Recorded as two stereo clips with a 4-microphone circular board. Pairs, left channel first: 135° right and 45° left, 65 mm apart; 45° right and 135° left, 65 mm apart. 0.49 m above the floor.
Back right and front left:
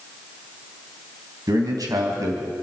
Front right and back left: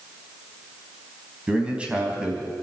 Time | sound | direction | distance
1.5 | a man speaking | 60° left | 3 m